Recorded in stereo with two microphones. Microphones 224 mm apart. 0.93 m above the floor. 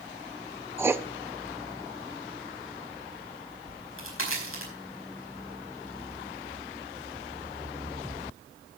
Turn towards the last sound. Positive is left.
turn(degrees=70)  # may be behind; listen again after turning